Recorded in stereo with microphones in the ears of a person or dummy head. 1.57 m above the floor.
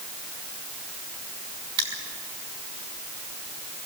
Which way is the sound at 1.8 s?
25° right (ahead or behind).